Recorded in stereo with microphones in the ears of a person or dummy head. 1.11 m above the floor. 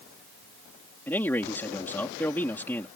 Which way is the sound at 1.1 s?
10° left (ahead or behind).